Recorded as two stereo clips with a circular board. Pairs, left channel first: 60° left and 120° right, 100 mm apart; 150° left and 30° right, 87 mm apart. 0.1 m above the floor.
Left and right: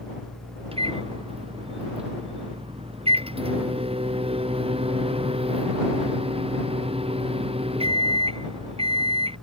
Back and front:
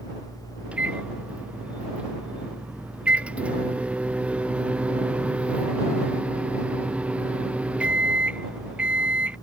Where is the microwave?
105° right.